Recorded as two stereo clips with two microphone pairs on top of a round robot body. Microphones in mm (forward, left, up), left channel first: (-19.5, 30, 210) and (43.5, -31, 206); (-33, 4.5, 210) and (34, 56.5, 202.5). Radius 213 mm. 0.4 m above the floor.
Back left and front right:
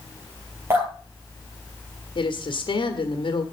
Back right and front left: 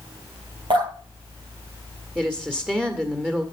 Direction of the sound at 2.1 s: 110° left.